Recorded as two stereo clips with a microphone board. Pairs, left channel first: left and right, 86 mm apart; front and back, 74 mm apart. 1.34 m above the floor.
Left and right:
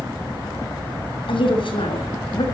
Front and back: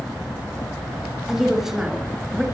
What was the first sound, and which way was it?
A woman speaking, 95° left.